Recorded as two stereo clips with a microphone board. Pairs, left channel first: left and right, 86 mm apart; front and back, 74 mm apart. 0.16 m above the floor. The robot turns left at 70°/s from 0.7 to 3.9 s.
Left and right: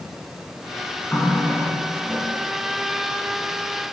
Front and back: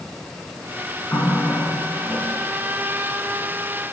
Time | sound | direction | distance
1.1 | a running tap | 25° left | 1.1 m